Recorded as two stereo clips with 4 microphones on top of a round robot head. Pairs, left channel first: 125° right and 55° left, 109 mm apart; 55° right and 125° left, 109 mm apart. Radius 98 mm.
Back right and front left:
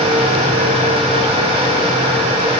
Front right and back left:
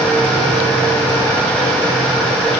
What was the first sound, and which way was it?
Only background noise.